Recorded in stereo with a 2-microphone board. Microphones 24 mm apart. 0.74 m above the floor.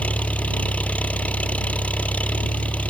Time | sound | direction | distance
0.0 | an engine running | 85° left | ?